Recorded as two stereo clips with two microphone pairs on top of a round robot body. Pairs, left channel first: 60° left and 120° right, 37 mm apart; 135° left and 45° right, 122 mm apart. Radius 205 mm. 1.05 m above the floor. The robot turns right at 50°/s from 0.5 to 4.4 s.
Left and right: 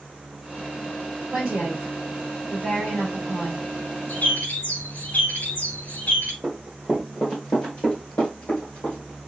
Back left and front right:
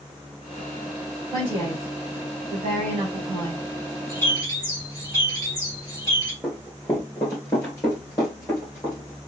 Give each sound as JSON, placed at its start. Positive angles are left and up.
{"t": 1.3, "sound": "a woman speaking", "azimuth_deg": -95, "distance_m": 3.0}
{"t": 4.1, "sound": "a bird", "azimuth_deg": 60, "distance_m": 3.5}
{"t": 6.4, "sound": "running footsteps", "azimuth_deg": -130, "distance_m": 1.0}